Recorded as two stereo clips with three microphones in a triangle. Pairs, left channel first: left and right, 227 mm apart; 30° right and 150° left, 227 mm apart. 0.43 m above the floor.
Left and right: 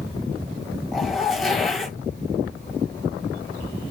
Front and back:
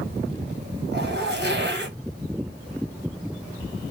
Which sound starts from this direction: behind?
A zipper, at 0.9 s.